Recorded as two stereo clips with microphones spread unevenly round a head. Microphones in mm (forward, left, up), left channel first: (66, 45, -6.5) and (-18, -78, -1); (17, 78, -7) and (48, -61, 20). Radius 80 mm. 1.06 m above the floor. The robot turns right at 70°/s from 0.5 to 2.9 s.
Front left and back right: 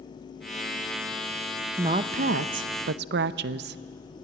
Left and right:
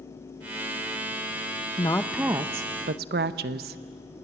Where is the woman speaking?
165° left, 0.6 m; by 3.8 s 115° right, 0.6 m.